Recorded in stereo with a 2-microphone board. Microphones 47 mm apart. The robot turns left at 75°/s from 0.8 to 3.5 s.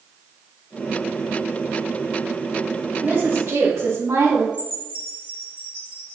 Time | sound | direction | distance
3.0 | a woman speaking | 45° right | 2.5 m
4.5 | a chime | 30° right (ahead or behind) | 2.5 m